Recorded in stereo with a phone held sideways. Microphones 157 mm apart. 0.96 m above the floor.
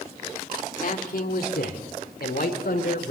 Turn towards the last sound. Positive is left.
turn(degrees=85)